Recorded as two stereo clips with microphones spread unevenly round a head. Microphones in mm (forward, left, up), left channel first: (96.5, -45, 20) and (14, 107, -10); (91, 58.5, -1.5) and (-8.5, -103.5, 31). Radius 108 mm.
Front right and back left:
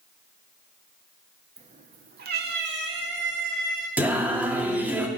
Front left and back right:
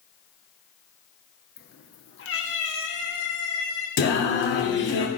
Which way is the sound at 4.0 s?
30° left.